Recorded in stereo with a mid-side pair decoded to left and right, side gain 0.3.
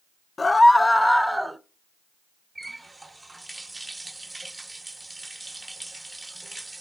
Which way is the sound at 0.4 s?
40° left.